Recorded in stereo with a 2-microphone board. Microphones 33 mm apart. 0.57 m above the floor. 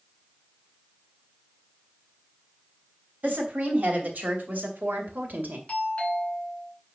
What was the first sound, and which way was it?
A woman speaking, 60° right (ahead or behind).